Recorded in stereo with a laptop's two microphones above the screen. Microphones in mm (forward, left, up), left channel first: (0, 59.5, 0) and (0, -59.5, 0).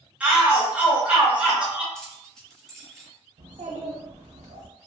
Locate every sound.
0.2 s a shout: 10° right (ahead or behind), 0.6 m
1.9 s keys jangling: 5° left (ahead or behind), 0.9 m
3.4 s a child speaking: 85° right, 0.6 m